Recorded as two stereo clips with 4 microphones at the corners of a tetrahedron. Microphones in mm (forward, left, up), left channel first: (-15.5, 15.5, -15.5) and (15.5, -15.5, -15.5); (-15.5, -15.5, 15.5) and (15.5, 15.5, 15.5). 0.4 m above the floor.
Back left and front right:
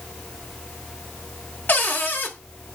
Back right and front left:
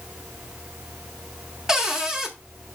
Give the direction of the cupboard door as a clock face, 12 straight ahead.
8 o'clock.